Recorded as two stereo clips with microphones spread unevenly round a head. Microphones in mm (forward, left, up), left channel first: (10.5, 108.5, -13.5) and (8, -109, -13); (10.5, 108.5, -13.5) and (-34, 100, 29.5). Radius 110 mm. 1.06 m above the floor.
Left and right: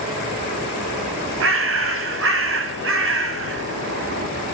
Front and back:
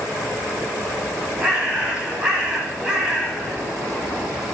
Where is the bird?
115° right, 1.9 m.